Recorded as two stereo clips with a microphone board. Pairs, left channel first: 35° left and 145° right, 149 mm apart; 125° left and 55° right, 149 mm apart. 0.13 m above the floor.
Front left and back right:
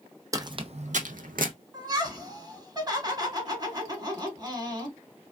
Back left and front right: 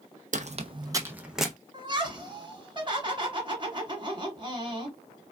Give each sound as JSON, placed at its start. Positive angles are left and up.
{"t": 0.3, "sound": "footsteps", "azimuth_deg": -80, "distance_m": 0.5}
{"t": 1.7, "sound": "laughter", "azimuth_deg": -95, "distance_m": 1.6}